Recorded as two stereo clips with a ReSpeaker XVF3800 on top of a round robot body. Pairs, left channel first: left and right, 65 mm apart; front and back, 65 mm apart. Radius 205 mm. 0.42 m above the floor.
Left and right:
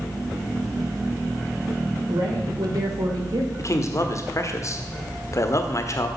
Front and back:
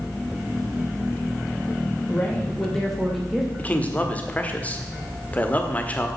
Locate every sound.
2.1 s a woman speaking: 70° right, 2.5 m; by 3.5 s 95° right, 2 m
3.6 s a man speaking: 65° left, 1.3 m